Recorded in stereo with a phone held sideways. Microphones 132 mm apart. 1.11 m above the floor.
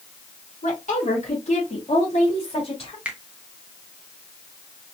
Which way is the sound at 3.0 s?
10° right (ahead or behind).